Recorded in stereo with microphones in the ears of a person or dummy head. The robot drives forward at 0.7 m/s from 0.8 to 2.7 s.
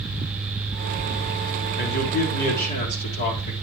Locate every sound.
1.8 s a man speaking: 55° left (ahead or behind), 4.5 m; by 3.5 s 50° left (ahead or behind), 4.5 m